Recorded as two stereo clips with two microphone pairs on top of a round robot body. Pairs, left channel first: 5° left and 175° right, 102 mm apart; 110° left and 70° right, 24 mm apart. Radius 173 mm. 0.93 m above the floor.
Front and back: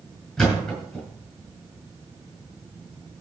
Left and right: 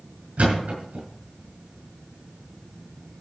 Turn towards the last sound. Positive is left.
turn(degrees=-80)